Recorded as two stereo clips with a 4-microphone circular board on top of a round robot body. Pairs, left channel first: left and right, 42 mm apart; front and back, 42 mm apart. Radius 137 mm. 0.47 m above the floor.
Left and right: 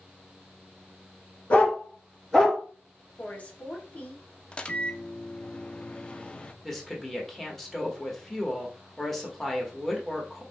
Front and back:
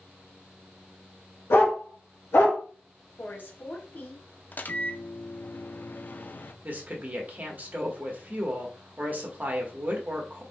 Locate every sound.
1.5 s a dog barking: 30° left, 1.9 m; by 2.6 s straight ahead, 3 m
3.2 s a woman speaking: 35° left, 1.4 m
4.5 s a microwave: 30° left, 0.6 m
6.6 s a woman speaking: 165° left, 1.5 m